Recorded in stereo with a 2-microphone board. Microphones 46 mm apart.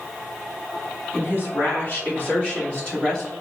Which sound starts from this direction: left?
A woman speaking, at 1.1 s.